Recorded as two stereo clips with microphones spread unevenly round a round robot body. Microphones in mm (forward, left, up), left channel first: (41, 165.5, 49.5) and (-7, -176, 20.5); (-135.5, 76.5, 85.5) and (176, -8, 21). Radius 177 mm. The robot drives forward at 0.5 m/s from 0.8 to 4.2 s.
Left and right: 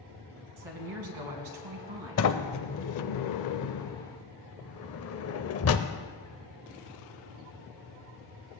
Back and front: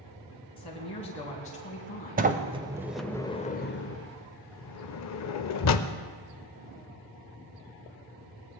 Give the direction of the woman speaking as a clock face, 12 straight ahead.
4 o'clock.